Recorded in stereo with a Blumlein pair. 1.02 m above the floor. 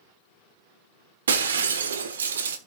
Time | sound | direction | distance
1.3 | breaking glass | 65° right | 1.3 m